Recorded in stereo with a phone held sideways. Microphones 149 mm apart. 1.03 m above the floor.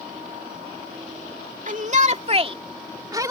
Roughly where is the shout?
Right.